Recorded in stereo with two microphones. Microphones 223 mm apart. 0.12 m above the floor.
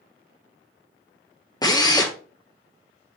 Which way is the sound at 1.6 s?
15° left (ahead or behind).